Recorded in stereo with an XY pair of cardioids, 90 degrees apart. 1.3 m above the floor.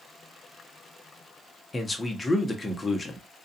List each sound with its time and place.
1.7 s a man speaking: 25° left, 0.8 m